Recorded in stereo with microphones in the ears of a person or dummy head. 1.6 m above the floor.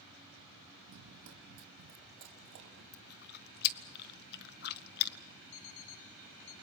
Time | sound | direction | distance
0.9 | running footsteps | 60° right (ahead or behind) | 3.5 m
2.9 | chewing | 55° left (ahead or behind) | 0.8 m
5.5 | an alarm clock | 65° left (ahead or behind) | 1.6 m